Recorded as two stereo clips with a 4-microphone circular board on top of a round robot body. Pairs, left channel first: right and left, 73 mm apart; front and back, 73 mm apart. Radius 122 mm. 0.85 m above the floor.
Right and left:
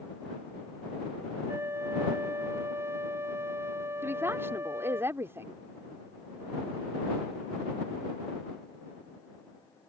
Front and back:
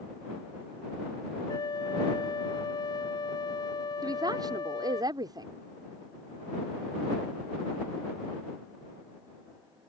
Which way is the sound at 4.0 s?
150° left.